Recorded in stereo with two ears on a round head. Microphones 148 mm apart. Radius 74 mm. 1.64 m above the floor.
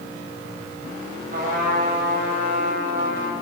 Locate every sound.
1.3 s a trumpet: 60° right (ahead or behind), 5.5 m